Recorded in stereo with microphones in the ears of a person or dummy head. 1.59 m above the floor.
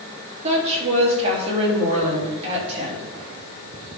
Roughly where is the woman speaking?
Right.